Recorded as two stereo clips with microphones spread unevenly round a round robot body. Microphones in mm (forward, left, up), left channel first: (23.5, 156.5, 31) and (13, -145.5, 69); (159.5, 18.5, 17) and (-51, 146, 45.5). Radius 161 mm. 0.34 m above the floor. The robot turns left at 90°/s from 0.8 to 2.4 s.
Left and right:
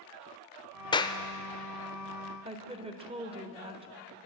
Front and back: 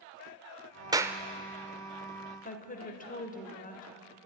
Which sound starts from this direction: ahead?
A woman speaking, at 2.5 s.